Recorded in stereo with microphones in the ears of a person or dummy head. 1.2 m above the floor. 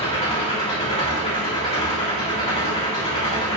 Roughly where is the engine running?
Left.